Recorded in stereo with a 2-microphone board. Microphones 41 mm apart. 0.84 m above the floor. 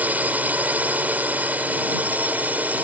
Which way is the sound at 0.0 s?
40° right (ahead or behind).